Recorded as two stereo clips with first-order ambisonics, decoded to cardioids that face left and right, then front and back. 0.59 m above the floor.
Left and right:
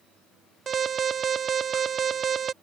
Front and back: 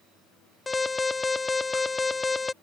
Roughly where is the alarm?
Ahead right.